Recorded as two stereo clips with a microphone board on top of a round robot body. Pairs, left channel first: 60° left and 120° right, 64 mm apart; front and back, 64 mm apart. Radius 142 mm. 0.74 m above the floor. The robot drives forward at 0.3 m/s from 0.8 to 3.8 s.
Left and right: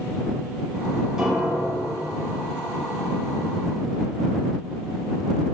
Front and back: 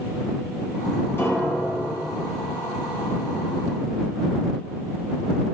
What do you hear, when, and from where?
1.2 s a piano: 45° right, 1.6 m; by 1.9 s 50° right, 1.4 m